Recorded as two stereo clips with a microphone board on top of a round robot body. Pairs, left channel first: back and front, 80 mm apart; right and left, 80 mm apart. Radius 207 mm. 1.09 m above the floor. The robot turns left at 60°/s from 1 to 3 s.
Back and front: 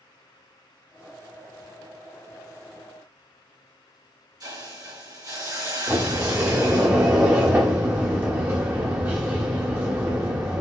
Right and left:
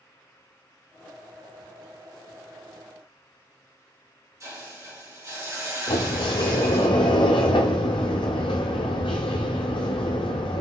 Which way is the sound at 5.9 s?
70° right.